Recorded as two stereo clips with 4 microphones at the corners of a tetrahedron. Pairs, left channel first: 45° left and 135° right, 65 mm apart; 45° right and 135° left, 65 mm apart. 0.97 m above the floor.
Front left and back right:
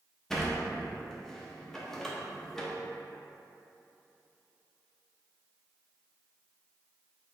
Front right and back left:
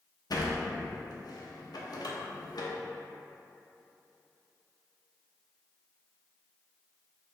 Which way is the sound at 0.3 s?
40° right.